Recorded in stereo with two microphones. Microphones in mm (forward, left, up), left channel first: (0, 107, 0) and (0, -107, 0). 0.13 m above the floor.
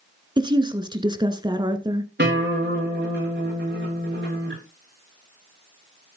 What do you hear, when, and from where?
0.4 s a woman speaking: 20° right (ahead or behind), 1.4 m
2.2 s a guitar: 50° right (ahead or behind), 7 m